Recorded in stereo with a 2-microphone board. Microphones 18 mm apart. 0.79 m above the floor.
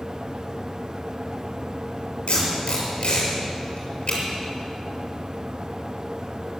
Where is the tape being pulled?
90° left, 6.5 m.